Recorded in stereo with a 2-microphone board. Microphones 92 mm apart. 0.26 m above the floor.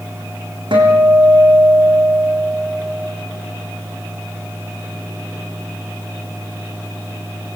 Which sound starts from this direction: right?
A guitar, at 0.7 s.